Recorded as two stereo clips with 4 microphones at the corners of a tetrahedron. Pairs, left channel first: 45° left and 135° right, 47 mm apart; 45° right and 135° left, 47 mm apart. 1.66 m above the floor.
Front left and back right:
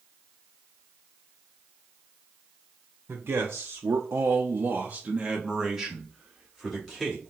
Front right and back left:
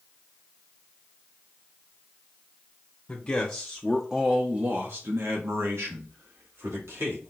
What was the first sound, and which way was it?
A man speaking, 105° right.